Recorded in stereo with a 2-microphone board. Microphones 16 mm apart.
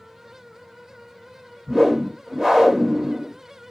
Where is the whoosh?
30° right (ahead or behind), 1.0 m.